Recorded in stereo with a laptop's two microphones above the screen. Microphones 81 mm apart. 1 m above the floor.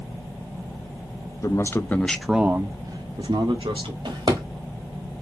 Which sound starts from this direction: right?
A drawer, at 4.0 s.